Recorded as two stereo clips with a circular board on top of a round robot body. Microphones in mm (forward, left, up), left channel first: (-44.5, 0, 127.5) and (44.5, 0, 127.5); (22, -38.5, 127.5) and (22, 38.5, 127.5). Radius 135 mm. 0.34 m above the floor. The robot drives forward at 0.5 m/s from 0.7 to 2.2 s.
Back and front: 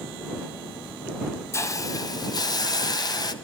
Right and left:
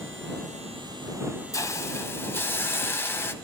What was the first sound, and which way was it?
A hiss, 130° right.